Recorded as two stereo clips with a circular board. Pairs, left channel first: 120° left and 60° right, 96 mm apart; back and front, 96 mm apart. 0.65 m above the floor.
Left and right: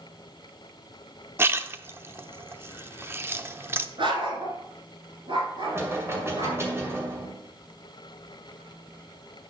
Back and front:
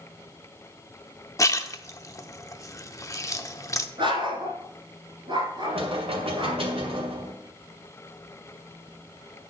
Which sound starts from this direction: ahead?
Knocking, at 5.6 s.